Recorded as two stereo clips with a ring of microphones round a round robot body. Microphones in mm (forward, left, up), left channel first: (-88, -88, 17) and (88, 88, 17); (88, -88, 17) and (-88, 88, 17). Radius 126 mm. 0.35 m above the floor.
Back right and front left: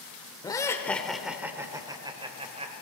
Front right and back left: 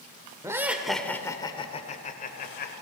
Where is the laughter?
170° right, 1.1 m; by 2.7 s 10° right, 1.5 m.